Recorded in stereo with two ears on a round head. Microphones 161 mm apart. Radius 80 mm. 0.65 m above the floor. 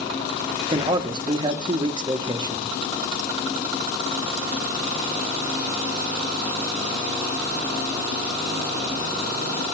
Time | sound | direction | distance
0.7 | a man speaking | 25° right (ahead or behind) | 1.0 m